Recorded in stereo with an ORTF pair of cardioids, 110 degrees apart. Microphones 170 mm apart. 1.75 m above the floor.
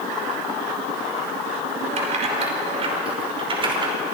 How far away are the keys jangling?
About 5.5 m.